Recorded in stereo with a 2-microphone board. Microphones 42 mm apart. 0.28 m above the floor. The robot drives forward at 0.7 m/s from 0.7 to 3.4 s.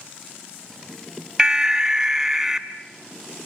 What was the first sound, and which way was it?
An alarm, 15° right (ahead or behind).